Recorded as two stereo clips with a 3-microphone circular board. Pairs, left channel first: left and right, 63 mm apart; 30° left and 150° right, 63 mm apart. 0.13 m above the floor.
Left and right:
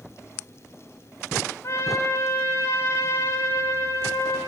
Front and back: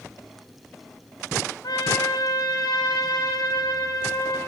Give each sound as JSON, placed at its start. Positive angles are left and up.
{"t": 1.6, "sound": "a trumpet", "azimuth_deg": 45, "distance_m": 9.5}